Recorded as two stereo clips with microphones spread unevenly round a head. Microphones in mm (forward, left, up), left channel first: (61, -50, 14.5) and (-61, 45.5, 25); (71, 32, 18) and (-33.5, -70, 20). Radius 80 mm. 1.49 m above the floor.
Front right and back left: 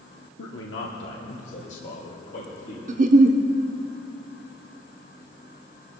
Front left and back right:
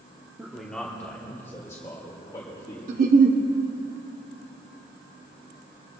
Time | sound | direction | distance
0.4 | a man speaking | 55° right | 0.9 m
2.9 | a giggle | 175° right | 0.7 m